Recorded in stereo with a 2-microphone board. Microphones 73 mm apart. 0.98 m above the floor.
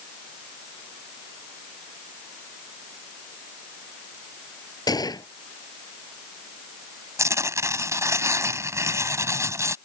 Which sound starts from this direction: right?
Tearing paper, at 7.2 s.